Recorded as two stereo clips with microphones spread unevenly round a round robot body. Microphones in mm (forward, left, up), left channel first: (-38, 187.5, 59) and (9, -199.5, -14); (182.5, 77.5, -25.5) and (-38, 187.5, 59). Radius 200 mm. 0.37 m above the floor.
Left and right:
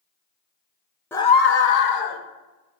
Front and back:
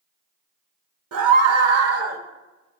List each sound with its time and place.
1.1 s a scream: 170° right, 1.0 m; by 2.2 s 110° left, 1.3 m